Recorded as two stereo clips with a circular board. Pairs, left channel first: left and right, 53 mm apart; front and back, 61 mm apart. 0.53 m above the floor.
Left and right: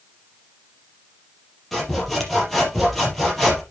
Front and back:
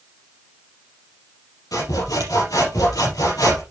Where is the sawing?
Straight ahead, 5 m.